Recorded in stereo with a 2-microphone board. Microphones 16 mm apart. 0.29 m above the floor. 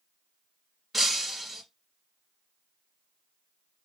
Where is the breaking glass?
15° right (ahead or behind), 2.5 m.